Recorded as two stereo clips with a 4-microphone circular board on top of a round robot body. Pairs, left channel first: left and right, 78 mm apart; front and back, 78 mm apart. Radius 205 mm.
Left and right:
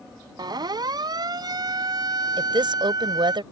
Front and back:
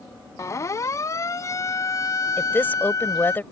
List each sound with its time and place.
0.4 s a siren: 55° right; by 3.4 s 50° right
2.4 s a woman speaking: 65° right